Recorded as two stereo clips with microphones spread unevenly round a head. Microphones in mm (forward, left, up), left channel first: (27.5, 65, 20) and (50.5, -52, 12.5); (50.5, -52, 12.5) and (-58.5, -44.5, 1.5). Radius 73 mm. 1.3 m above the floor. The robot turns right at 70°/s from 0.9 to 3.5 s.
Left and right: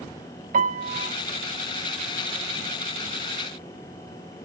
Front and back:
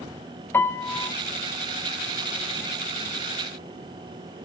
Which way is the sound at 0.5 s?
70° right.